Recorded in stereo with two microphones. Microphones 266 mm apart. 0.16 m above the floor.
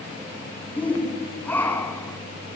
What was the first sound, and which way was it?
A shout, 5° left (ahead or behind).